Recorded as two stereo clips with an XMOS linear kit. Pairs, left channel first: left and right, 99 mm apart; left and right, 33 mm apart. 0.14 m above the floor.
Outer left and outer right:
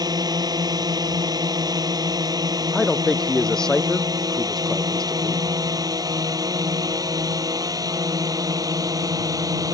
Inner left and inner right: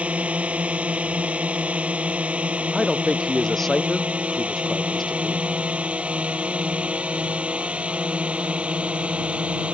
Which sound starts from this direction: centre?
A man speaking, at 2.7 s.